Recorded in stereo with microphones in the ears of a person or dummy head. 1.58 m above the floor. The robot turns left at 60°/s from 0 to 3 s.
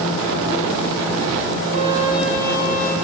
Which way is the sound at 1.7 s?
145° right.